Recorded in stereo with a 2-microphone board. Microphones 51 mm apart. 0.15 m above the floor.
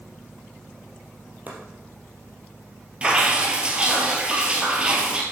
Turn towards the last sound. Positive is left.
turn(degrees=-20)  # may be behind; listen again after turning